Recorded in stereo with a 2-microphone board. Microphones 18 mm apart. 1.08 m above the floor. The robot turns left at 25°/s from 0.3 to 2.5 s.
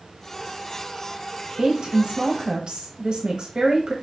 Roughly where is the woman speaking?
Right.